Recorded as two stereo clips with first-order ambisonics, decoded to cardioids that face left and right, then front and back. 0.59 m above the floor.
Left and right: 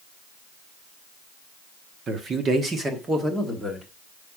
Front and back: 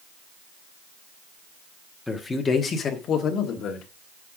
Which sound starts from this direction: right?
A man speaking, at 2.1 s.